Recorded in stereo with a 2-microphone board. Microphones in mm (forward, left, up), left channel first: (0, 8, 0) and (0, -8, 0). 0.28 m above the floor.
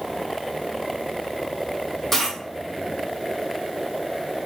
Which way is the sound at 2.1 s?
10° left (ahead or behind).